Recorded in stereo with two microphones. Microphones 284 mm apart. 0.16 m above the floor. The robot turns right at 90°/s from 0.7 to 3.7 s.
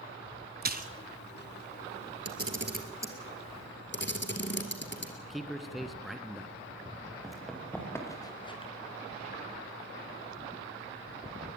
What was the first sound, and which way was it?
A splash, 35° right (ahead or behind).